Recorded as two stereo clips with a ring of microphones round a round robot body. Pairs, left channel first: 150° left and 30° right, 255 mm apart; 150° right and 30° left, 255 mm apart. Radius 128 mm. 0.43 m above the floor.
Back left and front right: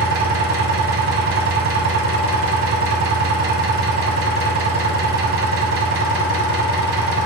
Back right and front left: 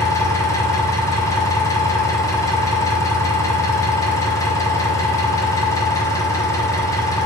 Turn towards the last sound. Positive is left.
turn(degrees=-70)